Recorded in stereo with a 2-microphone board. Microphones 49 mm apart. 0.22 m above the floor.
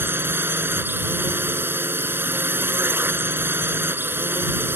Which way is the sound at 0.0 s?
45° right (ahead or behind).